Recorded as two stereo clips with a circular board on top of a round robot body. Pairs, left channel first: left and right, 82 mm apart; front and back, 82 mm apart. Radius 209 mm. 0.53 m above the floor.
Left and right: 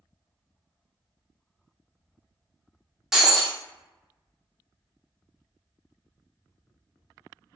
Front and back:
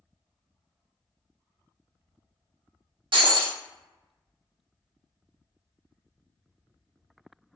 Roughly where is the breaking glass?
Behind.